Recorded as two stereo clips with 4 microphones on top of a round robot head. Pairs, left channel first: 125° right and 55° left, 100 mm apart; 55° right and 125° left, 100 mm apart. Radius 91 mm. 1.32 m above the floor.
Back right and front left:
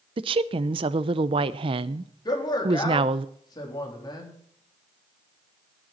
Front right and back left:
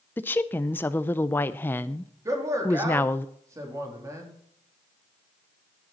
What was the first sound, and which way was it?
A woman speaking, 15° left.